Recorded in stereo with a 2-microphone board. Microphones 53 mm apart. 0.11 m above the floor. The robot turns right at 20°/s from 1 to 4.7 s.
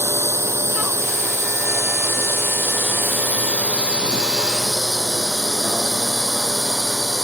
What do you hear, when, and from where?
0.0 s a drone: 70° right (ahead or behind); by 7.2 s 5° right (ahead or behind)